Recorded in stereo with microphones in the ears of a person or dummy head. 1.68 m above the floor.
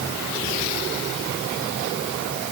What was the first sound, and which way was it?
Only background noise.